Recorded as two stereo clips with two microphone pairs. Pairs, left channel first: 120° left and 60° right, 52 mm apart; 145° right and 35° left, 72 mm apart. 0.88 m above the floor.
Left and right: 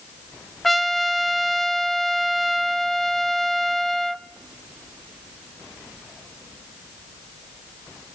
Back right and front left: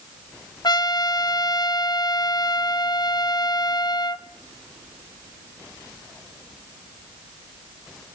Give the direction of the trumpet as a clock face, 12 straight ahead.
5 o'clock.